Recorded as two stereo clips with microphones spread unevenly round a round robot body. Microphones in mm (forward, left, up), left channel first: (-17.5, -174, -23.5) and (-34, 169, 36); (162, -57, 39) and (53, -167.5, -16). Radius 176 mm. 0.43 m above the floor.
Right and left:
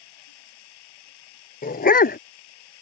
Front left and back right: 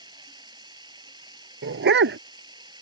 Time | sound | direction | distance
0.0 | running water | 70° right | ?
1.6 | a dog barking | 155° right | ?